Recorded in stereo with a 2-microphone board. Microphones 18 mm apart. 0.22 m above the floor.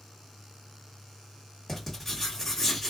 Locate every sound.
1.7 s writing: 15° left (ahead or behind), 1.6 m